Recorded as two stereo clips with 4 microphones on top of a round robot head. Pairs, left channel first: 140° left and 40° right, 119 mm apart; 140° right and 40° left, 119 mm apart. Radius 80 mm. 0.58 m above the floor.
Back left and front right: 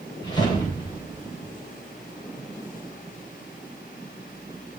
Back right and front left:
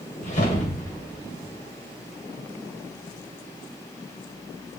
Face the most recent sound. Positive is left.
turn(degrees=-165)